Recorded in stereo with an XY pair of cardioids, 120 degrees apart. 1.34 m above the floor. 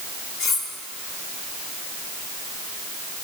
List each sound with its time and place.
0.4 s cutlery clinking: 65° left, 3 m